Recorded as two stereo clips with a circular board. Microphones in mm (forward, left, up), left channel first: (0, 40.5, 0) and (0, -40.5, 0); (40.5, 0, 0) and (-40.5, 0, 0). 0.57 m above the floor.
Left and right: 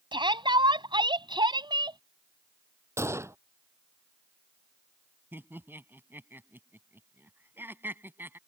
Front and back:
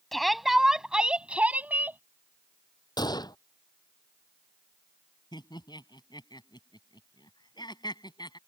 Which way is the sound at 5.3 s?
25° right.